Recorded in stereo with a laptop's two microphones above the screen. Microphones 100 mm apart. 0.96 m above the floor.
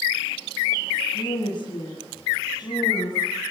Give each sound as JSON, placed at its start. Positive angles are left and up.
{"t": 1.1, "sound": "a woman speaking", "side_deg": 45, "distance_m": 7.0}